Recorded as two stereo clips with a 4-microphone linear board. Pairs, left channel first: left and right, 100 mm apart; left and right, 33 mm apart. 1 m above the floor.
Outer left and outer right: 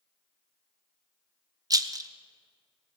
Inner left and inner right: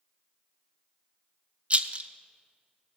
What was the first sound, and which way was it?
A rattle, 40° right (ahead or behind).